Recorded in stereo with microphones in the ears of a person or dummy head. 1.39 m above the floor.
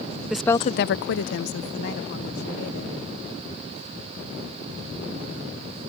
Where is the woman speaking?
5° right (ahead or behind); by 3.0 s 55° left (ahead or behind).